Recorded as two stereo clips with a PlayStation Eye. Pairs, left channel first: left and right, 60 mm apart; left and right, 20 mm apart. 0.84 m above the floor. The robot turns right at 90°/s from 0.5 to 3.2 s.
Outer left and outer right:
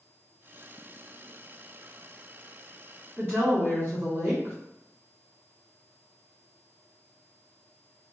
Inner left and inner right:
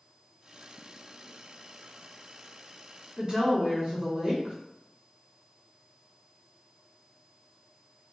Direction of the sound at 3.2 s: 45° right (ahead or behind).